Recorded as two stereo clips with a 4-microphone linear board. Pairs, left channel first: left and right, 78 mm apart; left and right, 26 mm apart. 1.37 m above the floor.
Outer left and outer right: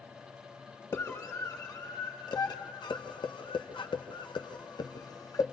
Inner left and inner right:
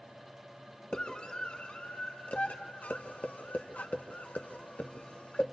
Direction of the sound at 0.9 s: 45° left (ahead or behind).